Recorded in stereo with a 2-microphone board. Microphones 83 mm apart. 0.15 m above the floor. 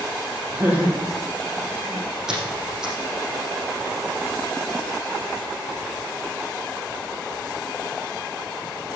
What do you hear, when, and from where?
0.5 s laughter: 15° right (ahead or behind), 6 m; by 2.2 s 10° right (ahead or behind), 7 m
2.3 s a squeak: 5° right (ahead or behind), 5 m